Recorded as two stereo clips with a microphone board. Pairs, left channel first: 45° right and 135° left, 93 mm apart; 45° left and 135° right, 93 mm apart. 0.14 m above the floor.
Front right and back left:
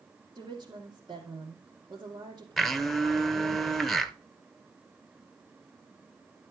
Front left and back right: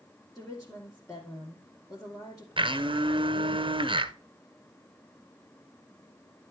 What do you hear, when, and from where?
0.3 s a woman speaking: 100° left, 2.5 m
2.6 s a blender: 135° right, 0.8 m